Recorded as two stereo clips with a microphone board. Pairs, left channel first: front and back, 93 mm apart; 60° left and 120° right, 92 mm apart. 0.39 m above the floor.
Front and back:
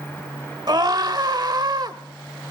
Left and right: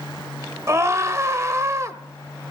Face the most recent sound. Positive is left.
turn(degrees=-165)